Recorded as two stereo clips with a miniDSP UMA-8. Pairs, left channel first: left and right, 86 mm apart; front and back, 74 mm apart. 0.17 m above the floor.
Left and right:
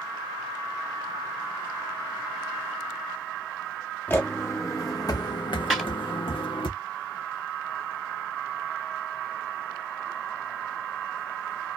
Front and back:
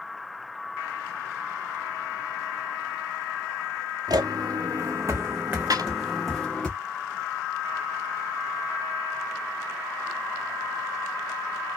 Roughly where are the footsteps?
Behind.